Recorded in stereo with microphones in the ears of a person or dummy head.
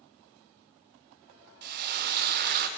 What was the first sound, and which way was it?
Frying, 55° right (ahead or behind).